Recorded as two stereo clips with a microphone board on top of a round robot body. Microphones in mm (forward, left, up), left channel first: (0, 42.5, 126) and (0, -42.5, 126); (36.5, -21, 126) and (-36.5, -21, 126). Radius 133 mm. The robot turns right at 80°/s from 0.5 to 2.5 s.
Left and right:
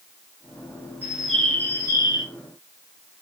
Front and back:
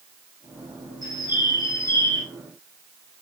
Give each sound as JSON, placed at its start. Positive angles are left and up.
{"t": 1.0, "sound": "a bird", "azimuth_deg": -20, "distance_m": 1.3}